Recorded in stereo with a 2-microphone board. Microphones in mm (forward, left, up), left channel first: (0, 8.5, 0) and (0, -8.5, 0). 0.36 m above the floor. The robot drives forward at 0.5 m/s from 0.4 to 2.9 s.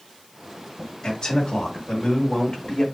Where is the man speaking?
35° left (ahead or behind), 1.3 m; by 2.8 s 25° left (ahead or behind), 1.6 m.